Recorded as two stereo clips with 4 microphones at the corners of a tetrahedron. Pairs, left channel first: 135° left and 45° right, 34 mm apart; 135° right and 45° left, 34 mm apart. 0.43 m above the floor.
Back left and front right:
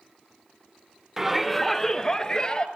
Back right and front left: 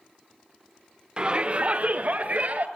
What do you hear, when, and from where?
1.2 s a shout: 30° left, 1.0 m; by 2.7 s 80° left, 2 m